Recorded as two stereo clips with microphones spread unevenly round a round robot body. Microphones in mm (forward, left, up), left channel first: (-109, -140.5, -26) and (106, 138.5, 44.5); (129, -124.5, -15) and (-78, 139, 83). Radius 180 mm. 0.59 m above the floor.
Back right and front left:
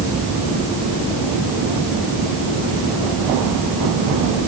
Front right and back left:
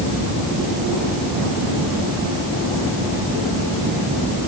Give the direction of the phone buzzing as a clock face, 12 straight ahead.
No phone buzzing in this recording.